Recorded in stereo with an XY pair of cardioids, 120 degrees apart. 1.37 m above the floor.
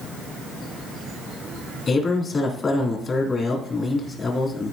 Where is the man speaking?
35° left, 3 m.